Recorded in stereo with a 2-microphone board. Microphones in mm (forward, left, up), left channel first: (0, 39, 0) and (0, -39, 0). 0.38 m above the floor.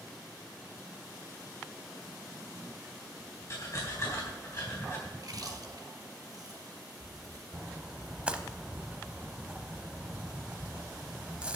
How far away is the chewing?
About 1.9 m.